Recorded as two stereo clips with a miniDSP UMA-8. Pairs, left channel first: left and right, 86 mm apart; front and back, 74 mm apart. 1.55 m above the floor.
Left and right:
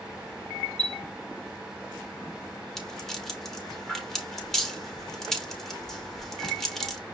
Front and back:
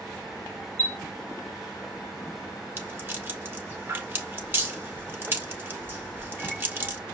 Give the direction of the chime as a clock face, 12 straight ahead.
2 o'clock.